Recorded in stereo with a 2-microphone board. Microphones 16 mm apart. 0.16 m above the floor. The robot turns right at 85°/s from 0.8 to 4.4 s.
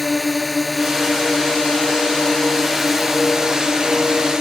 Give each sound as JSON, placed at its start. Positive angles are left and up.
{"t": 0.0, "sound": "a drone", "azimuth_deg": 0}